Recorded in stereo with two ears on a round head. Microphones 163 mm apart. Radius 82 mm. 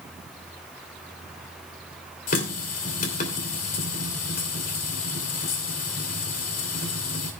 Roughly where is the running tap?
Left.